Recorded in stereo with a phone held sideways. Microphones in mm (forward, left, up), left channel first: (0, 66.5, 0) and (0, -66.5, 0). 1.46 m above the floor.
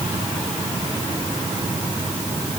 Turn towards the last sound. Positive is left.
No sound to turn to.